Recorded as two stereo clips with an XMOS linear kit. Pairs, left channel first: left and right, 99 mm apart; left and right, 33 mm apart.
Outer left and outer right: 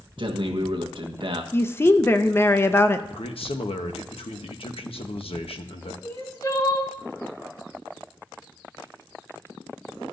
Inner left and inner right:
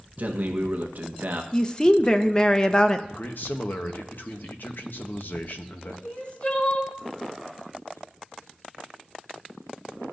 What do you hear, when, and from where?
0.2 s a man speaking: 55° right (ahead or behind), 1.1 m
1.5 s a woman speaking: 25° left (ahead or behind), 0.6 m
3.1 s a man speaking: 70° left (ahead or behind), 1.0 m
6.0 s crying: 40° left (ahead or behind), 2.5 m